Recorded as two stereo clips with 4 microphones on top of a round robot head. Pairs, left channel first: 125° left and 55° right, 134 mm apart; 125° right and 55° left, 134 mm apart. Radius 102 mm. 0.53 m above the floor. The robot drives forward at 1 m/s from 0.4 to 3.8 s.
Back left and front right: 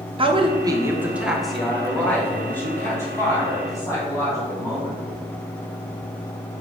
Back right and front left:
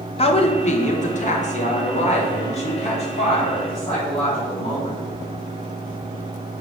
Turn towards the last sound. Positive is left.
turn(degrees=-165)